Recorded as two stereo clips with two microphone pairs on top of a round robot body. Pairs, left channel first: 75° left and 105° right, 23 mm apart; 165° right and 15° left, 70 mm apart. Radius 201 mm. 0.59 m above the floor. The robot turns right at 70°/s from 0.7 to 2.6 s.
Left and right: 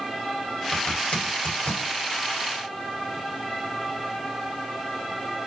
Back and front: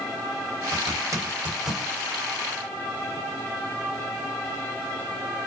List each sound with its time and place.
0.7 s a zipper: 30° left, 1.9 m; by 1.9 s 115° left, 1.9 m